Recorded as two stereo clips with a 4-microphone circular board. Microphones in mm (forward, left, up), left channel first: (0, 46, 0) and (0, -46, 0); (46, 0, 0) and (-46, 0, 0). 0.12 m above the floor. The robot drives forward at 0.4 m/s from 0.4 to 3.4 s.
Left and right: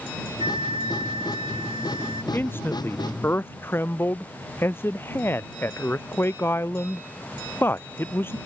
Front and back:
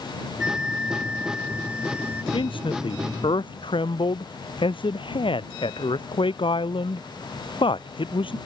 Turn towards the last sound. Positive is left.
turn(degrees=25)